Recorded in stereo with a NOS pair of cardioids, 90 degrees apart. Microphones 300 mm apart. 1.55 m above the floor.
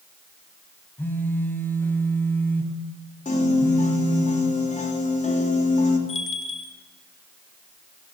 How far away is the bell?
About 2 m.